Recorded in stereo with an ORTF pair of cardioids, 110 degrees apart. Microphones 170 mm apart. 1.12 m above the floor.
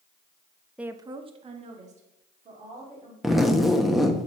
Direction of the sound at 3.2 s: Straight ahead.